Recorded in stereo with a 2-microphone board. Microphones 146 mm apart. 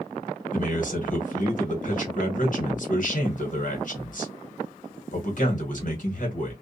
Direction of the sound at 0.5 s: 60° left (ahead or behind).